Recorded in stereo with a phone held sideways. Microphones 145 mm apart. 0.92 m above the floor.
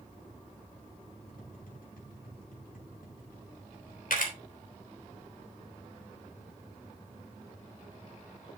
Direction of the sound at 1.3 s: 85° left.